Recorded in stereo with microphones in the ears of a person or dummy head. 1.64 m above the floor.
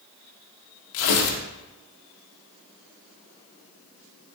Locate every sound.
0.9 s tearing paper: 70° left (ahead or behind), 1.7 m